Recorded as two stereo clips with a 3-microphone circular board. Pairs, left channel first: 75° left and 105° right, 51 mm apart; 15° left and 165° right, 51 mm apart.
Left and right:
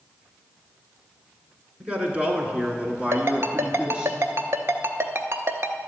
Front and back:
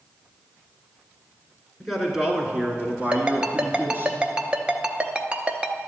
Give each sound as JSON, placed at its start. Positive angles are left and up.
{"t": 1.8, "sound": "a man speaking", "azimuth_deg": -70, "distance_m": 1.4}
{"t": 3.1, "sound": "a ringtone", "azimuth_deg": -100, "distance_m": 0.7}